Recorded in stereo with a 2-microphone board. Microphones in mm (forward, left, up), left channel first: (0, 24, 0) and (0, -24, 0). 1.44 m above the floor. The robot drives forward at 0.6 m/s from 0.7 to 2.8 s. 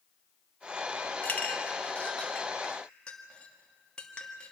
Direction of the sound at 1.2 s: 35° left (ahead or behind).